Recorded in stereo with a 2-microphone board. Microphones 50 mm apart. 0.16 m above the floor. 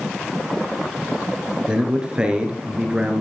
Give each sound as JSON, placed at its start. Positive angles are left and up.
{"t": 1.7, "sound": "a man speaking", "side_deg": -20, "distance_m": 2.5}